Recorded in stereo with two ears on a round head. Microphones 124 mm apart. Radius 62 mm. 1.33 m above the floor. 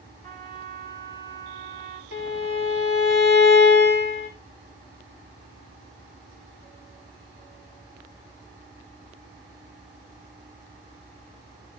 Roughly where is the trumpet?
Left.